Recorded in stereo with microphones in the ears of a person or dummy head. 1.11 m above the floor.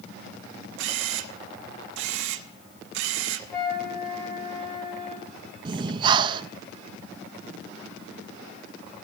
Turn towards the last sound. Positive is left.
turn(degrees=-30)  # may be behind; listen again after turning